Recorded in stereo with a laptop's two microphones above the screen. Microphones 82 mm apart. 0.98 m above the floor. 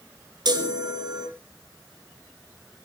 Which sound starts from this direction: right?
A chime, at 0.5 s.